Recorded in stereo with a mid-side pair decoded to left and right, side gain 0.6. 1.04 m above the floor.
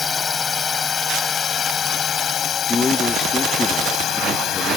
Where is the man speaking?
20° left.